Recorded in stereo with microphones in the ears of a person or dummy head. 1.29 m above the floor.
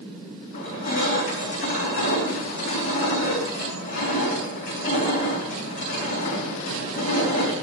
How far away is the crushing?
About 4.5 m.